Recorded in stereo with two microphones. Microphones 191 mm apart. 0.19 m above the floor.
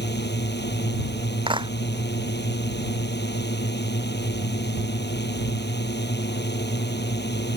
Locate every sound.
0.0 s a drone: 65° left (ahead or behind)
1.5 s a clap: 25° right (ahead or behind)